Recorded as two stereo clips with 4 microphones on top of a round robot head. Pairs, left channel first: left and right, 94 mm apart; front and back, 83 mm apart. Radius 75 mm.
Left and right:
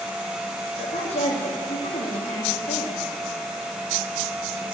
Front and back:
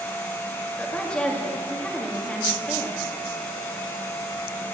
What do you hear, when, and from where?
0.8 s a woman speaking: 75° left, 2 m